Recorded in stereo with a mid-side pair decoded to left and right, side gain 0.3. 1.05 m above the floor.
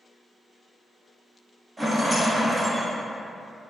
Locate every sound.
1.8 s a rattle: 25° right, 0.8 m